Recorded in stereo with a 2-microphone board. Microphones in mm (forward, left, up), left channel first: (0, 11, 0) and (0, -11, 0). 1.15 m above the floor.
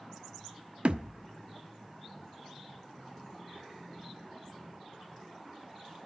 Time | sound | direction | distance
0.8 | a thud | 60° right (ahead or behind) | 1.0 m